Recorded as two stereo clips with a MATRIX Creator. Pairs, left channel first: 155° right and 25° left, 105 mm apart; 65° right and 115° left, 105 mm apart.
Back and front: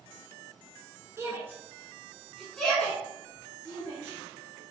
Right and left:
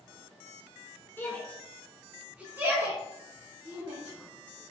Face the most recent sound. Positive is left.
turn(degrees=145)